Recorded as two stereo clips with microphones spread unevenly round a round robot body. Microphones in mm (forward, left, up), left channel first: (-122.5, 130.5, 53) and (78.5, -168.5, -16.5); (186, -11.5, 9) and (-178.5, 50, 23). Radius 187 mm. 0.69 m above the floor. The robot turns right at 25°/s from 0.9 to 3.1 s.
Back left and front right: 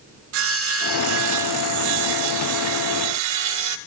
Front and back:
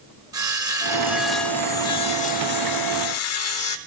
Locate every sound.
0.3 s sawing: 110° right, 0.5 m; by 3.8 s 55° right, 0.5 m